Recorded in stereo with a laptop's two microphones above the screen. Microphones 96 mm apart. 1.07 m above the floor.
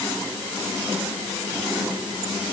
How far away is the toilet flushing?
I don't hear a toilet flushing.